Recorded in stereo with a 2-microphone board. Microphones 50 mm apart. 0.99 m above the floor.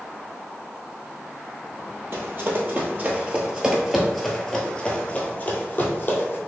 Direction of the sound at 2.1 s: 45° right (ahead or behind).